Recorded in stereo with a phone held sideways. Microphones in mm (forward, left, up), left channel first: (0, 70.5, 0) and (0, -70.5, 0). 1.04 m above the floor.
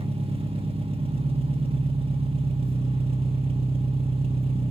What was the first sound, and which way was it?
An engine running, 40° right (ahead or behind).